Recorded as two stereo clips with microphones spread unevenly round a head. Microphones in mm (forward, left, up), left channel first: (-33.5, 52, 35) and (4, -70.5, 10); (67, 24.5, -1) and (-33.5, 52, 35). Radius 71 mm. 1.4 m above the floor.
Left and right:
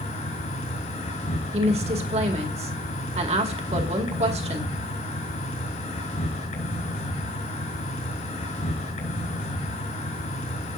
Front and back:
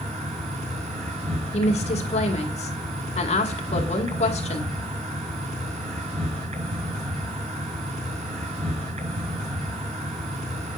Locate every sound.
0.0 s an insect: 145° left, 5.5 m
1.5 s a woman speaking: 30° right, 2 m